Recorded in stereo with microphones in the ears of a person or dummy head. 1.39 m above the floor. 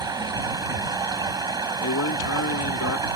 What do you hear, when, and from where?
0.0 s running water: 20° right (ahead or behind)
1.8 s a man speaking: 75° left (ahead or behind)